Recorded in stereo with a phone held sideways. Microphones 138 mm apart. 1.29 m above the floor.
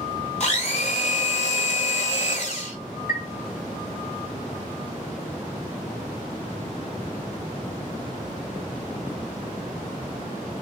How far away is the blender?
About 1.8 m.